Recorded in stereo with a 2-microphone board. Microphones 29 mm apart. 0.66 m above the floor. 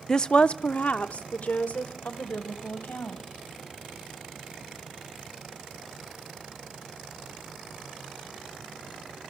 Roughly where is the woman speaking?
Centre.